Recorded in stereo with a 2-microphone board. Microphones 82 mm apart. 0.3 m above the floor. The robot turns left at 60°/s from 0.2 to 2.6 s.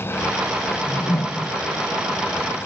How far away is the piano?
No piano in this recording.